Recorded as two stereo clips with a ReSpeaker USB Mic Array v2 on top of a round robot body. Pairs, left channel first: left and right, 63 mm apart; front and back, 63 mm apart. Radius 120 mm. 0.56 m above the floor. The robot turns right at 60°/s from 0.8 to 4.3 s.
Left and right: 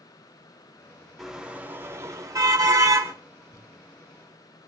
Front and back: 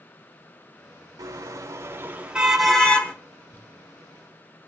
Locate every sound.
1.2 s a car horn: 175° right, 4 m; by 3.1 s 60° right, 4 m
3.5 s crumpling: 60° left, 5 m; by 3.7 s 70° left, 5 m